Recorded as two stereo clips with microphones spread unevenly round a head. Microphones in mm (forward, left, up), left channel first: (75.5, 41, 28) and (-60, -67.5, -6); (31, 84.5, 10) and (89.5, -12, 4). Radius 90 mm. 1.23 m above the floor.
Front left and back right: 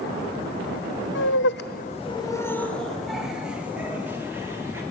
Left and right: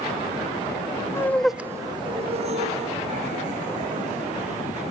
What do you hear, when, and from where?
1.1 s laughter: 55° left, 1.0 m; by 4.8 s 65° right, 4 m